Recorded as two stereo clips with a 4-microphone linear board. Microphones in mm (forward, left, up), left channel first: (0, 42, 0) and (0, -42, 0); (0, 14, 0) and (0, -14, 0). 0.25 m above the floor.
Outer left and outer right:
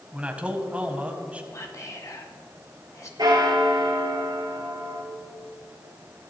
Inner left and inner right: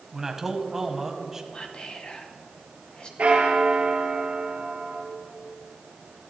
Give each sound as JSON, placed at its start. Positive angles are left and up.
{"t": 0.1, "sound": "a man speaking", "side_deg": -15, "distance_m": 1.4}
{"t": 1.5, "sound": "whispering", "side_deg": 40, "distance_m": 1.9}
{"t": 3.2, "sound": "a bell", "side_deg": -60, "distance_m": 2.5}